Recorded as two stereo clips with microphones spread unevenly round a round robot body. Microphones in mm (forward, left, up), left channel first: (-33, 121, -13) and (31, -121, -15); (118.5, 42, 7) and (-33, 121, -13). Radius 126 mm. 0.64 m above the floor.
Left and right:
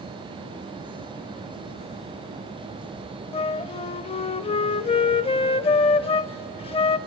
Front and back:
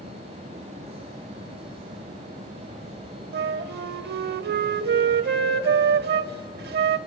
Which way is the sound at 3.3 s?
170° left.